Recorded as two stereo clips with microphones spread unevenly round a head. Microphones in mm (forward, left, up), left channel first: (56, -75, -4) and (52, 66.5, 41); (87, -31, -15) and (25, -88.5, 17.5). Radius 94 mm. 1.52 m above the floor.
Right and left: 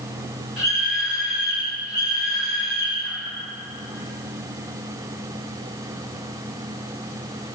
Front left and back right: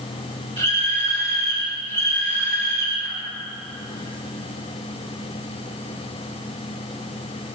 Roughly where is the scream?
Behind.